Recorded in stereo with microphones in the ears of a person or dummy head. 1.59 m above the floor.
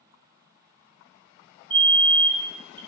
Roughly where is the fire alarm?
Right.